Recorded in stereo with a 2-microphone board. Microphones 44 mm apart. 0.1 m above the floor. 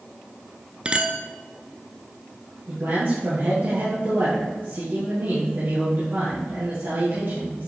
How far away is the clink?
About 0.7 m.